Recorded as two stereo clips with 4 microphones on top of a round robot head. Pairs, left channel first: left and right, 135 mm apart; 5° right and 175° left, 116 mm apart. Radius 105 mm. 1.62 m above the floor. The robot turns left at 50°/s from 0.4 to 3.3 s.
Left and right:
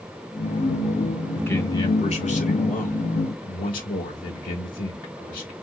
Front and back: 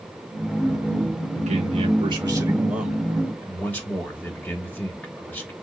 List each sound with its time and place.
1.4 s a man speaking: 170° left, 2.5 m; by 5.5 s 70° left, 2.5 m